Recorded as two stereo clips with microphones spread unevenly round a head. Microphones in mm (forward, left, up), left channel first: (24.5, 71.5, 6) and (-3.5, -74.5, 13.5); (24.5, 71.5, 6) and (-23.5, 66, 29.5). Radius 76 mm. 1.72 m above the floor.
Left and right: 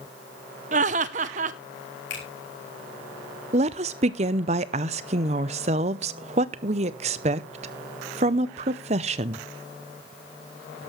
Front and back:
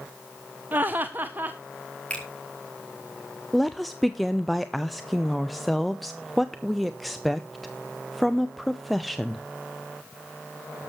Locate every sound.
0.7 s laughter: 135° right, 1.0 m
2.1 s a finger snap: 75° left, 4.5 m
3.5 s a woman speaking: 115° right, 0.7 m